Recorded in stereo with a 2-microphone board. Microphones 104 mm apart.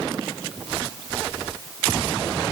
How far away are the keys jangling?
No keys jangling in this recording.